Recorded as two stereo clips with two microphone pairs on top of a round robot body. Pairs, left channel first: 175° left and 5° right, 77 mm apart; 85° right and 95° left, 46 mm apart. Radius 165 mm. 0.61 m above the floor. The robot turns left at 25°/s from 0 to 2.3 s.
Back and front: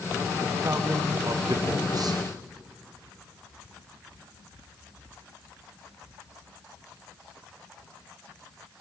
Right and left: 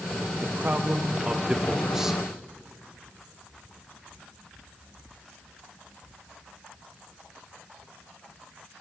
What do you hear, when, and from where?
0.4 s a man speaking: 55° left, 0.9 m; by 2.2 s 10° left, 0.9 m